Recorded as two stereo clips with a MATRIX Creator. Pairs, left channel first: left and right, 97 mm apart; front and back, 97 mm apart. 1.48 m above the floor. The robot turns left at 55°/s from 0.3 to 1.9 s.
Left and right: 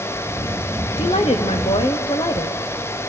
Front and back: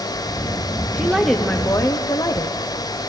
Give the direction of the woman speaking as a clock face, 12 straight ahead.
9 o'clock.